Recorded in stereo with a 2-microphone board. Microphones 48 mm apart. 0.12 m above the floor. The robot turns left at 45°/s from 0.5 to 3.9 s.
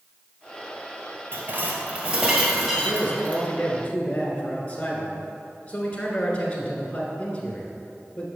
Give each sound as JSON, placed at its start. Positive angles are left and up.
{"t": 1.3, "sound": "dishes clattering", "azimuth_deg": -110, "distance_m": 1.5}
{"t": 2.8, "sound": "a man speaking", "azimuth_deg": 100, "distance_m": 1.2}